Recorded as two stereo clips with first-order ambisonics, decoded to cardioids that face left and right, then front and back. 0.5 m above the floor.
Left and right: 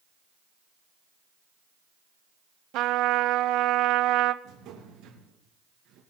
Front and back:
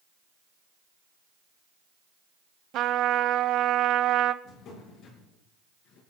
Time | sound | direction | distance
2.7 | a trumpet | 130° right | 0.6 m
4.4 | a drawer | 50° right | 4.5 m